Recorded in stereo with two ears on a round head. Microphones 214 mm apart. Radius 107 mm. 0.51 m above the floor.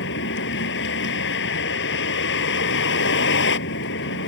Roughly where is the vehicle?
Left.